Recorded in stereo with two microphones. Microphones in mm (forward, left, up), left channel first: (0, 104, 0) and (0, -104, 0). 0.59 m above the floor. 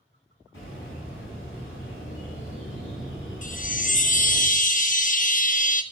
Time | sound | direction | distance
0.5 | a bird | 80° left | 4 m
3.4 | a chime | 40° left (ahead or behind) | 0.7 m